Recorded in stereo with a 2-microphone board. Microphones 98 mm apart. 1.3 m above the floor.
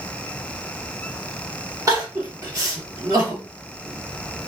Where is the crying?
35° right (ahead or behind), 1.4 m.